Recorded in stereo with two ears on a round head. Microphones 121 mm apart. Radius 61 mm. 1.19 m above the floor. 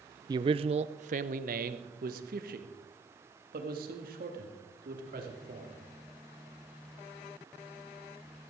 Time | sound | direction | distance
0.3 | a man speaking | 30° right (ahead or behind) | 0.5 m